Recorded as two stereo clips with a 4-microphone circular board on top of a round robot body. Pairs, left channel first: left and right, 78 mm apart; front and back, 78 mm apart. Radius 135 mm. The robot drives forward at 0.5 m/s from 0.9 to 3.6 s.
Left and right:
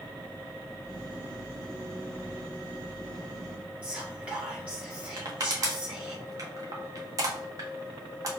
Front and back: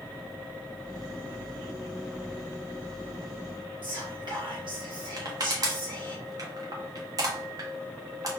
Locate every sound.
3.8 s whispering: 165° right, 1.8 m
5.2 s crushing: 135° right, 0.7 m